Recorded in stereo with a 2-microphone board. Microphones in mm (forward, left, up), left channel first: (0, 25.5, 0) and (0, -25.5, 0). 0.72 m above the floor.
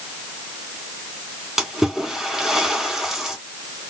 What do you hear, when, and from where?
1.6 s a splash: 5° right (ahead or behind), 2.5 m